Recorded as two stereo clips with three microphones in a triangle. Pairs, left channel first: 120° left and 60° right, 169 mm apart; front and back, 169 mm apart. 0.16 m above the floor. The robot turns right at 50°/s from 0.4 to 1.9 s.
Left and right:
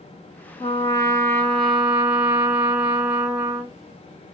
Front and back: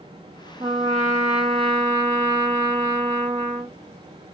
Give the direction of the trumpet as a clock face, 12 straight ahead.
7 o'clock.